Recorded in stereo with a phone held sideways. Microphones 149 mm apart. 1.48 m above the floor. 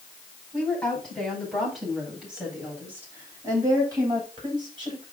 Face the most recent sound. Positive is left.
turn(degrees=-40)  # may be behind; listen again after turning